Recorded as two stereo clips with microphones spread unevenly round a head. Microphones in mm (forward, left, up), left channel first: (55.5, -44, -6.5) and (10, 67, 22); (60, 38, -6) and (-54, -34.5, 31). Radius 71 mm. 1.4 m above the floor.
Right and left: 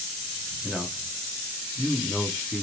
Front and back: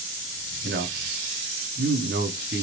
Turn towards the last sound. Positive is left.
turn(degrees=-160)